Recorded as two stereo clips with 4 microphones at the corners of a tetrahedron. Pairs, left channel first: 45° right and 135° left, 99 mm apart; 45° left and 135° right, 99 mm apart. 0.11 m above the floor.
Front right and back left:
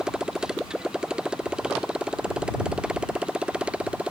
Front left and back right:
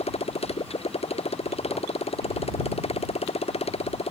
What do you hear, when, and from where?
0.0 s a motorcycle: 50° left; by 4.1 s 55° left